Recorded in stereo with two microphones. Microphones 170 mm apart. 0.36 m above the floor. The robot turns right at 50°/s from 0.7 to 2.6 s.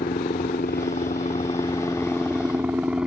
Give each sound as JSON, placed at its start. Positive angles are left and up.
{"t": 0.0, "sound": "a helicopter", "side_deg": 60}